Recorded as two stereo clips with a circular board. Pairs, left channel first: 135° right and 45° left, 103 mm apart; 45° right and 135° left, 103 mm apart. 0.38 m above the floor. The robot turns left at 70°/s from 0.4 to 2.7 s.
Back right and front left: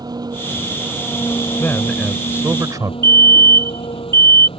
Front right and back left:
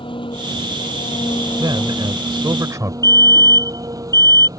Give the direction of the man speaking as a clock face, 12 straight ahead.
7 o'clock.